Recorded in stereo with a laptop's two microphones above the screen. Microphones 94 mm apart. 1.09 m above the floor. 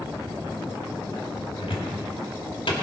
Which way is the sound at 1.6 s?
75° left (ahead or behind).